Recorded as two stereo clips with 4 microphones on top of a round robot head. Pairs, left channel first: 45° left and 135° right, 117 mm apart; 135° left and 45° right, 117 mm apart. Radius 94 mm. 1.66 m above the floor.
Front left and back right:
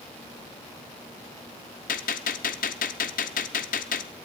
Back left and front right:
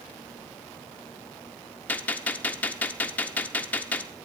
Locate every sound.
1.9 s a gunshot: 60° left, 0.5 m